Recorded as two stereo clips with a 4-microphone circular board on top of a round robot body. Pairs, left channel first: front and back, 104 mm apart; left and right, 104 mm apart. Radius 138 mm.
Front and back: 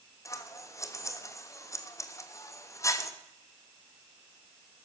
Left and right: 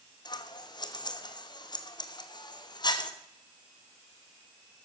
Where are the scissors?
55° left, 1.4 m.